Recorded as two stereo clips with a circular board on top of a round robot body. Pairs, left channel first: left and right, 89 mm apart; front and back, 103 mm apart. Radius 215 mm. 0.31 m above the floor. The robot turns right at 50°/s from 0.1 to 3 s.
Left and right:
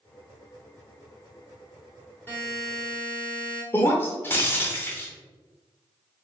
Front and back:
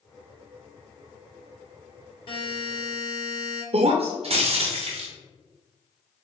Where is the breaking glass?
155° left, 0.7 m.